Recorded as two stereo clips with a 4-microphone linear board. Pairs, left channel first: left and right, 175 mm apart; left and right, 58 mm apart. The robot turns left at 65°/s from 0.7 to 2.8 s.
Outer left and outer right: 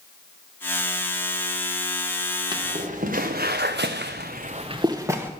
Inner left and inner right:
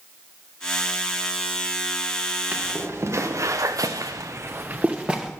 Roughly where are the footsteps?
Right.